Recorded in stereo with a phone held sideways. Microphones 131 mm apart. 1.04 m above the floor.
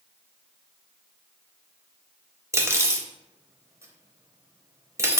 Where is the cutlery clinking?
20° right (ahead or behind), 0.5 m.